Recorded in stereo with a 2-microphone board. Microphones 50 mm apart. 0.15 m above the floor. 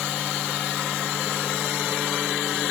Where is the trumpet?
I don't hear a trumpet.